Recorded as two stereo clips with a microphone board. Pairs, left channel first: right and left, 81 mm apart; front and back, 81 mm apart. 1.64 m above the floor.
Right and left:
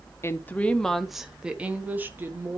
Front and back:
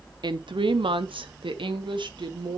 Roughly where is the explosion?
No explosion in this recording.